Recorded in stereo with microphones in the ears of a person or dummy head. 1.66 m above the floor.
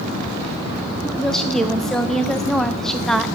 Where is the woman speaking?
5° left (ahead or behind), 0.7 m.